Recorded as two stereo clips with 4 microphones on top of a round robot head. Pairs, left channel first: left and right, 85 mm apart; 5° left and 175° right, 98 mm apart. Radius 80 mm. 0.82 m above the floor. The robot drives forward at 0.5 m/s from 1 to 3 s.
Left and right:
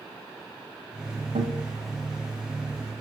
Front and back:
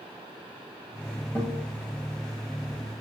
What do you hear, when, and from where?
1.4 s a guitar: 100° right, 1.7 m; by 1.6 s 105° right, 1.7 m